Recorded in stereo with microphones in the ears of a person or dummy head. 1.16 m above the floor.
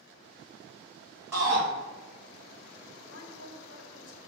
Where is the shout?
10° right (ahead or behind), 1.6 m.